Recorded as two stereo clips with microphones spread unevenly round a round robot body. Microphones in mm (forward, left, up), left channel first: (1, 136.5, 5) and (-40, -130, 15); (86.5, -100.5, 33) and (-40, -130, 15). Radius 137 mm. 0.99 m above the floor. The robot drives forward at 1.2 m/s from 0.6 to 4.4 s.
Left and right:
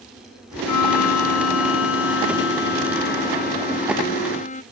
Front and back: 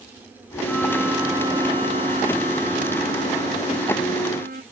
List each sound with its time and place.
0.7 s a violin: 100° left; by 4.6 s 145° left